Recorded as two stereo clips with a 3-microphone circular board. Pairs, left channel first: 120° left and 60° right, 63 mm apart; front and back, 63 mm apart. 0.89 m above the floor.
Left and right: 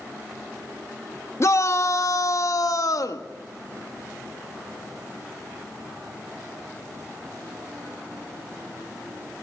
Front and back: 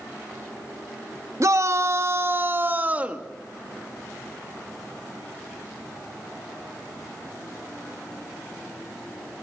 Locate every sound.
1.4 s a shout: 155° left, 1.6 m; by 3.3 s 110° left, 1.7 m